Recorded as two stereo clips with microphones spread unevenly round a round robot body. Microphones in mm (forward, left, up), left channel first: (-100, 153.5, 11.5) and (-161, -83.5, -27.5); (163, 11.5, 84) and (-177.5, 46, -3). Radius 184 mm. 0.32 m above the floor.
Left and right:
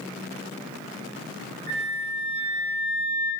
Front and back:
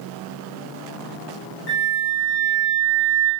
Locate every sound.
1.7 s a flute: 65° right, 0.5 m